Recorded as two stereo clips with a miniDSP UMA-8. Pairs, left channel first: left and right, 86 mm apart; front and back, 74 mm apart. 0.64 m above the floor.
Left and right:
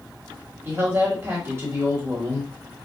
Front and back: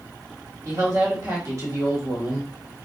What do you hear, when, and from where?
0.7 s a woman speaking: 135° right, 1.6 m